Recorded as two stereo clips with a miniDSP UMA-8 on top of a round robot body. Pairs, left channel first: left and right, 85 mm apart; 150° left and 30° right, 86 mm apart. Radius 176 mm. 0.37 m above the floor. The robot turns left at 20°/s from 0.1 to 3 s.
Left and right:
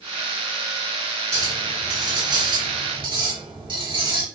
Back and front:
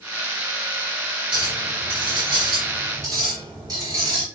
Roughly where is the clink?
Ahead right.